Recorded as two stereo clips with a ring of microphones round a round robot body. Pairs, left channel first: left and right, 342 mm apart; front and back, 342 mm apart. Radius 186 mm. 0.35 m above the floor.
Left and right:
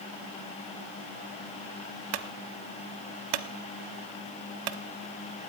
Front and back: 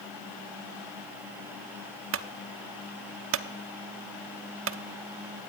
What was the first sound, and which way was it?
A clunk, 125° right.